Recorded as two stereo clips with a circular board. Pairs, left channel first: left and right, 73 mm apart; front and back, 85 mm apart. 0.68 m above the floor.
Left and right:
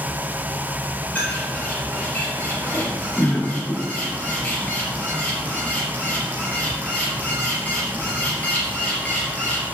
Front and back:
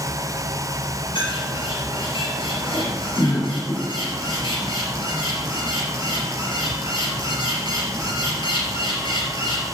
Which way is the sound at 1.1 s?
20° left.